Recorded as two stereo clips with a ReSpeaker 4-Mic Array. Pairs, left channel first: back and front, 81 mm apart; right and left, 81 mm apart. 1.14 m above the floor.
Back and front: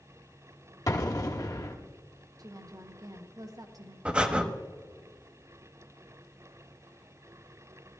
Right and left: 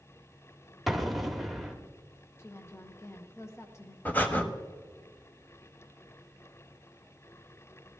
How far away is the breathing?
About 1.0 m.